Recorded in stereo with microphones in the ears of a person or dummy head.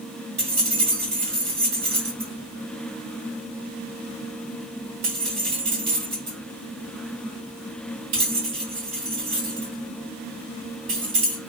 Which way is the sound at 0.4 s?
45° right (ahead or behind).